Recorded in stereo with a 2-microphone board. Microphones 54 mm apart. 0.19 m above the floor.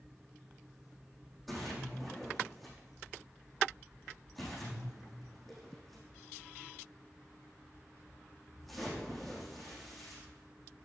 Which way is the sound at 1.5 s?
Centre (ahead or behind).